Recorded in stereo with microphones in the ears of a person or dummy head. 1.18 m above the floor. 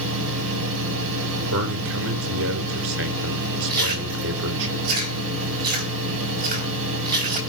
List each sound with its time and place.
0.0 s a fan: 85° right, 7 m
1.5 s a man speaking: 80° right, 4 m
3.7 s chewing: 50° right (ahead or behind), 4 m